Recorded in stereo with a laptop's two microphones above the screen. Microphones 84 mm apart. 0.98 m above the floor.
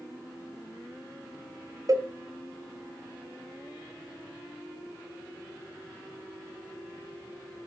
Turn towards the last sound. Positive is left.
turn(degrees=-45)  # may be behind; listen again after turning